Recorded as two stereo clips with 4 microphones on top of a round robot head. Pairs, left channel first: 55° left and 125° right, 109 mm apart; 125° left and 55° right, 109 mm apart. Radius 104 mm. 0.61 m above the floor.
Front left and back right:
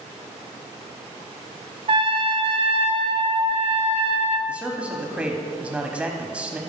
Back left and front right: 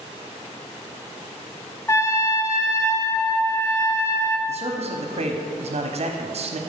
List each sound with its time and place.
1.9 s a trumpet: 165° right, 0.7 m
4.5 s a man speaking: 45° right, 1.1 m